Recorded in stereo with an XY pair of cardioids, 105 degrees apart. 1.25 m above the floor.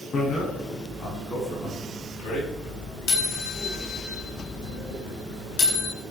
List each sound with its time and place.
0.1 s a bicycle bell: 50° left, 8.5 m; by 5.9 s 80° left, 11.5 m